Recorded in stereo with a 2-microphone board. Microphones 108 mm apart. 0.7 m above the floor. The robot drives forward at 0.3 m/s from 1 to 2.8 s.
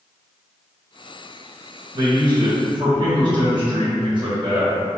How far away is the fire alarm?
I don't hear a fire alarm.